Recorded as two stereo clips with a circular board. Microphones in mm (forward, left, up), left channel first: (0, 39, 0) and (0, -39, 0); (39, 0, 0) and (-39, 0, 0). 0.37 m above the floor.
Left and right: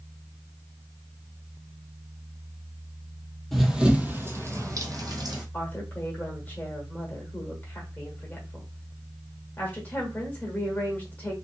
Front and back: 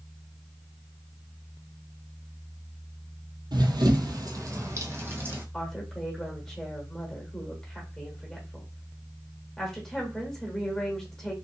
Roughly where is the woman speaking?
Left.